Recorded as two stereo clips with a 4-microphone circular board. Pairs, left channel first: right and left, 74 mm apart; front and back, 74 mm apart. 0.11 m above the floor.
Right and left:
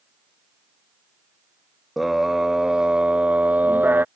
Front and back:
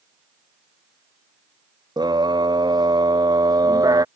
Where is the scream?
Straight behind; by 4.0 s 150° left.